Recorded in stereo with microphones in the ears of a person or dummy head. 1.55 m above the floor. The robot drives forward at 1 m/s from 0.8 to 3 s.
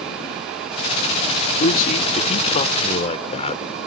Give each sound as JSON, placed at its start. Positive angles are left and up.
{"t": 1.6, "sound": "a man speaking", "side_deg": 40}